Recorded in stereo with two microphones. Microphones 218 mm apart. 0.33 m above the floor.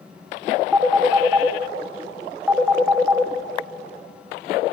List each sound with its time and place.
0.7 s a phone ringing: 5° right (ahead or behind), 1.2 m